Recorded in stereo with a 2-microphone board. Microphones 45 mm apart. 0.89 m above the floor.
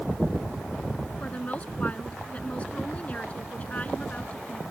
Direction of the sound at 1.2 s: 25° left (ahead or behind).